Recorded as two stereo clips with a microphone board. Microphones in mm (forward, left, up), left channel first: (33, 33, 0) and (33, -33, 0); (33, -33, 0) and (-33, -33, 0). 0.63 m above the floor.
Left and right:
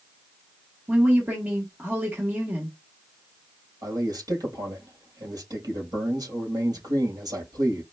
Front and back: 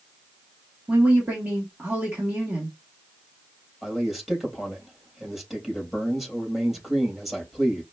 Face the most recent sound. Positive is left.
turn(degrees=-95)